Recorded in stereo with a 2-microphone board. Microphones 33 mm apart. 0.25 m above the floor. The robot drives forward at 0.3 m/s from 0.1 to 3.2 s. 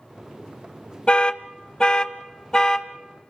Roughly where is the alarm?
Left.